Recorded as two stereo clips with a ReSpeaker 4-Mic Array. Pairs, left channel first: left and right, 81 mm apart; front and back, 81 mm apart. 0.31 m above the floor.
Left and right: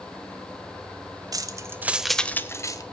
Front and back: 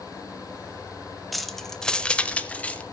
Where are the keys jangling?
90° right, 1.3 m; by 2.8 s 70° left, 1.3 m.